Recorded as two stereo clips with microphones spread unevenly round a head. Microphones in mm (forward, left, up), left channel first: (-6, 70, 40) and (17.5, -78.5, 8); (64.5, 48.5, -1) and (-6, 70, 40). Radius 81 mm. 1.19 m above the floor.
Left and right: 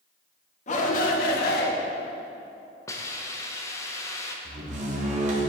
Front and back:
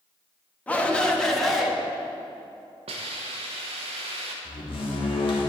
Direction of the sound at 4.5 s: 35° right.